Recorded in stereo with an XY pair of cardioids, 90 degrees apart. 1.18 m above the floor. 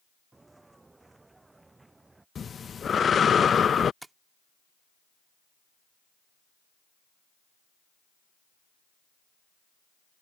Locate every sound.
0.3 s footsteps: 25° right
2.4 s breathing: 45° left
4.0 s tapping: 20° right